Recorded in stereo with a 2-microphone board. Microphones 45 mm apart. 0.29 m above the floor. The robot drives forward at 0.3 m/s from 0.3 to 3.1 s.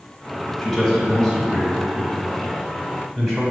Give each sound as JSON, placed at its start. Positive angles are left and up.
{"t": 0.6, "sound": "a man speaking", "side_deg": 5, "distance_m": 1.0}